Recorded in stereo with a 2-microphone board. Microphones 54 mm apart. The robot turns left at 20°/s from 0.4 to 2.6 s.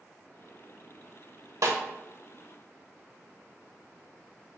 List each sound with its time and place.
1.6 s a snare drum: 70° right (ahead or behind), 0.9 m